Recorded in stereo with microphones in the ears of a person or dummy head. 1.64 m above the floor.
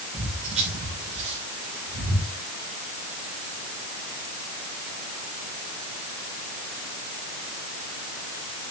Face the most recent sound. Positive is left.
turn(degrees=-25)  # may be behind; listen again after turning